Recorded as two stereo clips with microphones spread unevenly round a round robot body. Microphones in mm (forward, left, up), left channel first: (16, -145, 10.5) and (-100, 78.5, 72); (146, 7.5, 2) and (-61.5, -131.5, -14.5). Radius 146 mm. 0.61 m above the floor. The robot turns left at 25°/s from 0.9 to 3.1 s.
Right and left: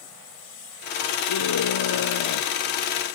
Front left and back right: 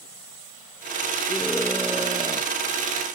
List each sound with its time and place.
1.3 s a scream: 50° right; by 2.5 s 80° right